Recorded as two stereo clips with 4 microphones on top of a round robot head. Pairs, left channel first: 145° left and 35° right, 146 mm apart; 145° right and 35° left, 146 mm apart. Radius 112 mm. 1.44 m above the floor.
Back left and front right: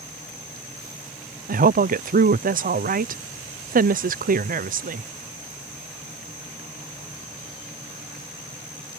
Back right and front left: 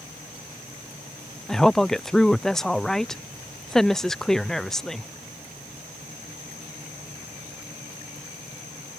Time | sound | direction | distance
1.5 | a woman speaking | 55° right | ?